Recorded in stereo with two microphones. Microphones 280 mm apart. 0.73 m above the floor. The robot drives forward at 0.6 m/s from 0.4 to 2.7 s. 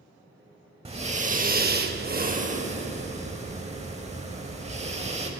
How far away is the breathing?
About 0.8 m.